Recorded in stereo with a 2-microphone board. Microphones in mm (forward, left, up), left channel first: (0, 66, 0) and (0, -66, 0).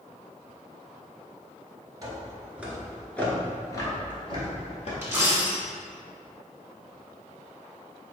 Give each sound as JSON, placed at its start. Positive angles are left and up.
{"t": 2.0, "sound": "footsteps", "side_deg": -30, "distance_m": 1.2}
{"t": 5.0, "sound": "a dropped coin", "side_deg": -20, "distance_m": 1.4}